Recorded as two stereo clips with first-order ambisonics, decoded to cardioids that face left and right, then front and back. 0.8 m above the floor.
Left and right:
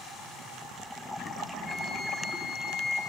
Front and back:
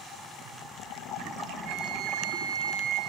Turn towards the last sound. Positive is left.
turn(degrees=170)